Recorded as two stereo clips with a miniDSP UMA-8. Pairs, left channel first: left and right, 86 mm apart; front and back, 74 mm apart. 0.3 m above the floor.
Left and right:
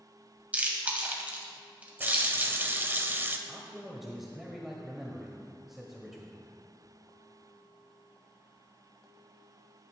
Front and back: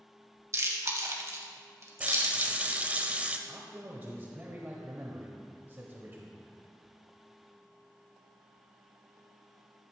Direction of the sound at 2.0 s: 130° right.